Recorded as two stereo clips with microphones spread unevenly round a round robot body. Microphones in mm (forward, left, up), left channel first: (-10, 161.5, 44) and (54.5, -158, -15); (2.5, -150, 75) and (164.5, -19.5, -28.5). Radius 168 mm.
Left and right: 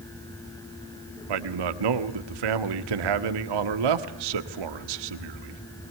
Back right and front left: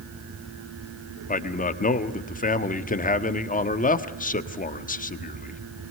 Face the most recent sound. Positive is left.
turn(degrees=-85)